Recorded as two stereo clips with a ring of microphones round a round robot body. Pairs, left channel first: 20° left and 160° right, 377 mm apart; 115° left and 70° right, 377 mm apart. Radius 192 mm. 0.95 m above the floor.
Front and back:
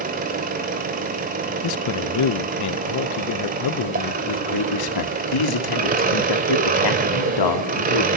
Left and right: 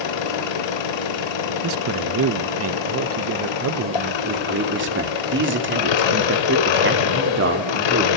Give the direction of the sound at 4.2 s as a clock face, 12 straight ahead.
12 o'clock.